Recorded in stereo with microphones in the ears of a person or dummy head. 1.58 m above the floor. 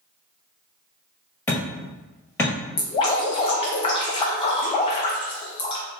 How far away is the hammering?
About 1.5 m.